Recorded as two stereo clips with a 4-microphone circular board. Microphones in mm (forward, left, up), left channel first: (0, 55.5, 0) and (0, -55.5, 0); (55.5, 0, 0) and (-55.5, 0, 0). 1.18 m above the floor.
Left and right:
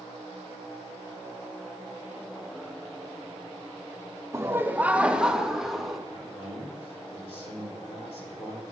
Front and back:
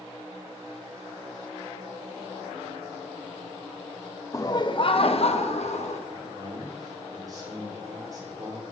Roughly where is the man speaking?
Behind left.